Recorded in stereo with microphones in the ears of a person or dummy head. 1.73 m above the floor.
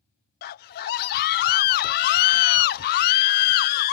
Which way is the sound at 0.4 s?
55° left (ahead or behind).